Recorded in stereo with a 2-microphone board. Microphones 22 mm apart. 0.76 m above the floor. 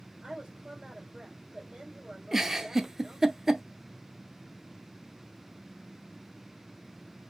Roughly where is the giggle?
Centre.